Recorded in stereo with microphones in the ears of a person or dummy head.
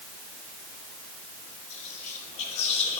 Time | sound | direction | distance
1.7 | whispering | 40° left (ahead or behind) | 3 m